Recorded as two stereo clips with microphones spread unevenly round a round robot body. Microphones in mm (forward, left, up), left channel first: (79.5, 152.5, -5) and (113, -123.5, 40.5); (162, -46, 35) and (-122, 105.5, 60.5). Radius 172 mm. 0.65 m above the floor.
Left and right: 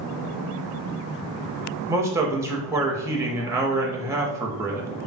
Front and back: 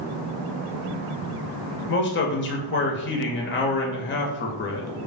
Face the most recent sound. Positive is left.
turn(degrees=5)